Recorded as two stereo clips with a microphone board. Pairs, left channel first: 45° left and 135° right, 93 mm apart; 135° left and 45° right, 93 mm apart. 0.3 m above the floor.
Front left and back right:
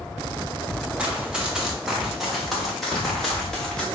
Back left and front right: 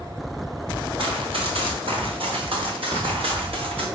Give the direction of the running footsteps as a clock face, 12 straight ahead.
2 o'clock.